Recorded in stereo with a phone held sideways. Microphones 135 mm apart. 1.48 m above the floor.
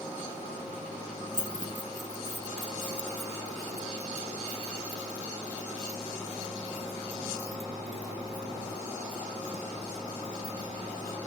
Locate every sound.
1.3 s keys jangling: 75° left (ahead or behind); by 11.2 s 40° left (ahead or behind)